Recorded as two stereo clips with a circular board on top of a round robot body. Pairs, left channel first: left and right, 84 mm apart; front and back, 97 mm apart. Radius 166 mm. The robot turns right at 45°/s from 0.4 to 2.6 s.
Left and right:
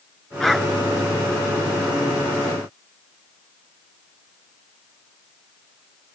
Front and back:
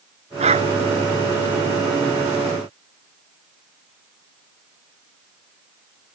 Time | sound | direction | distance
0.4 | a dog barking | 175° left | ?